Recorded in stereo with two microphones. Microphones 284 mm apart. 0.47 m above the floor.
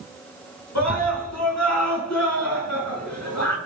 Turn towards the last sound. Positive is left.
turn(degrees=70)  # may be behind; listen again after turning